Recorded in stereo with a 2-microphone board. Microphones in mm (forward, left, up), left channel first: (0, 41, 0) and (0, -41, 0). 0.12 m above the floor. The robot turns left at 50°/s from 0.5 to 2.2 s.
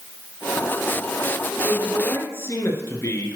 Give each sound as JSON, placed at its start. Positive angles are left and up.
{"t": 1.6, "sound": "a man speaking", "side_deg": 15, "distance_m": 1.7}